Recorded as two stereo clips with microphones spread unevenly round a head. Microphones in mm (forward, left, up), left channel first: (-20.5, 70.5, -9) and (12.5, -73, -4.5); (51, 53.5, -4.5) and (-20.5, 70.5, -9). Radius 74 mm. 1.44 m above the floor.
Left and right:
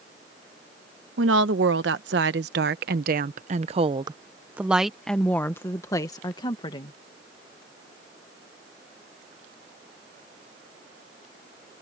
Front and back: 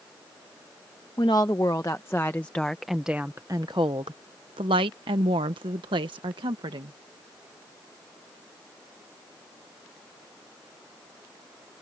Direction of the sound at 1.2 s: 80° right.